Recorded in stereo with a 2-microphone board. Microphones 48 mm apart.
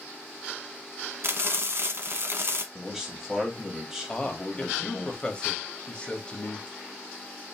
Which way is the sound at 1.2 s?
55° right (ahead or behind).